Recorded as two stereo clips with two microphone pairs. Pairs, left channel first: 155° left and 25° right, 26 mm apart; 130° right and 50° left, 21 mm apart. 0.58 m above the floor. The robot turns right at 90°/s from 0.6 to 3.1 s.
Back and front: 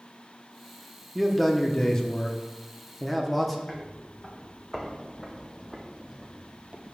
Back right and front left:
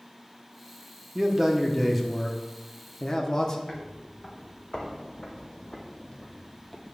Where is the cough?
I don't hear a cough.